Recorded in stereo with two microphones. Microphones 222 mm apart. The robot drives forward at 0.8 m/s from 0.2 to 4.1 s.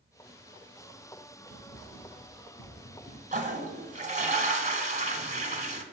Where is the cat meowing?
No cat meowing in this recording.